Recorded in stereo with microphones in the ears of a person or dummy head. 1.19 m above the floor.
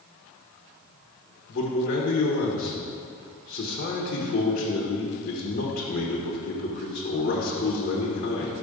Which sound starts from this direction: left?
A man speaking, at 1.5 s.